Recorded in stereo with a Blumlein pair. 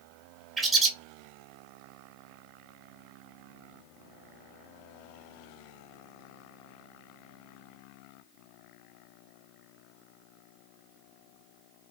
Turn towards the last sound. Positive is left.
turn(degrees=-15)